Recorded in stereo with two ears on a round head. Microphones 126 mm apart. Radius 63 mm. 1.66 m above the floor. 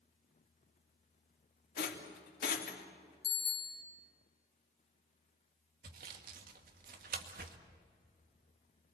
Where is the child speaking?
No child speaking in this recording.